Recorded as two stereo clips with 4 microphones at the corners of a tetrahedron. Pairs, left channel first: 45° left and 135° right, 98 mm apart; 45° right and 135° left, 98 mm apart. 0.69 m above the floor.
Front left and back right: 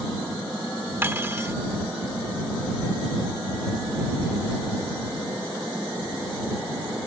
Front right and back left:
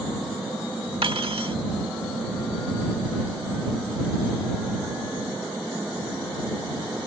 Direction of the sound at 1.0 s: 160° left.